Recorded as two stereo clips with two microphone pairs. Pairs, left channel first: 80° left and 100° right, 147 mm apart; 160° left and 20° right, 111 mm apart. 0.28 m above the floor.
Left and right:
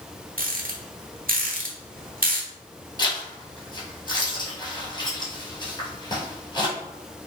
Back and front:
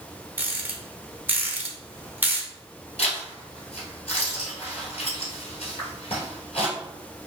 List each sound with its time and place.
0.4 s a rattle: 90° right, 0.5 m
3.0 s a zipper: 135° left, 1.1 m